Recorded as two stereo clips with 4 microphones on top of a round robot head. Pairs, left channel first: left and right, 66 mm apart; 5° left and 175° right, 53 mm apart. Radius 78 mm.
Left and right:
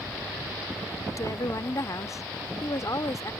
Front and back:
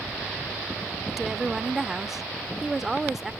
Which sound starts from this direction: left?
A woman speaking, at 1.1 s.